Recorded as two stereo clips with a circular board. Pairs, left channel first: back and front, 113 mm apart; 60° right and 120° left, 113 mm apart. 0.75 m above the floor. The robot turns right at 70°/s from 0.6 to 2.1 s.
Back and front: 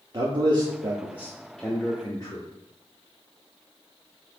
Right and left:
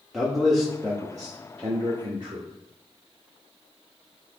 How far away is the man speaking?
About 0.8 m.